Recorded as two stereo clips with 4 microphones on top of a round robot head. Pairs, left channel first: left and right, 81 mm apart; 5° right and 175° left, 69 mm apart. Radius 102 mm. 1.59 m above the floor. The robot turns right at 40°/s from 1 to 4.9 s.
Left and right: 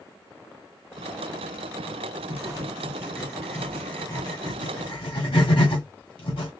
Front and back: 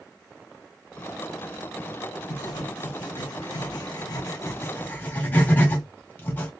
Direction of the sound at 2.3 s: 40° right.